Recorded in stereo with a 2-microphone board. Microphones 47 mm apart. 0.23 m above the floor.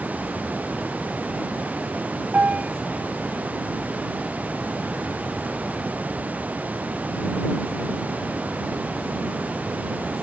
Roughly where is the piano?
Right.